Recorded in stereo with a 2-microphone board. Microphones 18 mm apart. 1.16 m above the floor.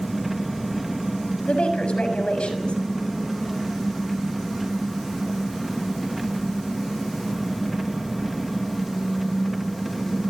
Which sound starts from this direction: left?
A woman speaking, at 1.4 s.